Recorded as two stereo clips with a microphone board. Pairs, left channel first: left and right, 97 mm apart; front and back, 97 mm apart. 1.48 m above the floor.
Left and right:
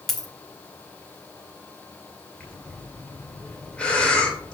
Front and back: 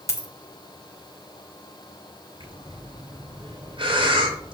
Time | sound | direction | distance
0.1 | a dropped coin | 5° left | 1.1 m
2.4 | breathing | 170° left | 2.0 m